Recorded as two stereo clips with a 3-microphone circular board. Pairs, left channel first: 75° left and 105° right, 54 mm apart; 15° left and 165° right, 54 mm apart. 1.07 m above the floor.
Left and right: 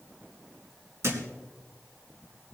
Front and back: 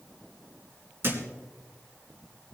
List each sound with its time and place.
1.0 s a thud: 125° right, 2 m